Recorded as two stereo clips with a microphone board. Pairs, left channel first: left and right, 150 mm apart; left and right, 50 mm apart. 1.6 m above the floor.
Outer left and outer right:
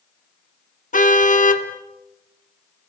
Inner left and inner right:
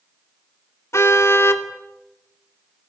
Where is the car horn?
60° left (ahead or behind), 2 m.